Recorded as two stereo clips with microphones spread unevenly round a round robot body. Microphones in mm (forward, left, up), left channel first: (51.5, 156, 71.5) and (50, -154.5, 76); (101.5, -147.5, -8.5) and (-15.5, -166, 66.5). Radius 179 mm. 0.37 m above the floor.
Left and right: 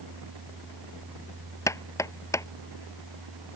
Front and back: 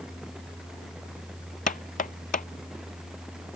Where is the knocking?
10° left.